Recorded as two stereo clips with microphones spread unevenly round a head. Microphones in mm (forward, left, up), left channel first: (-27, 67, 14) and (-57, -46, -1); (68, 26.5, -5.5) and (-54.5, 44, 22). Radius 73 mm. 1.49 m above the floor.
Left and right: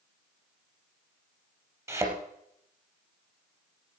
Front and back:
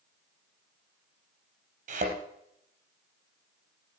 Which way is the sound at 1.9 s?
170° right.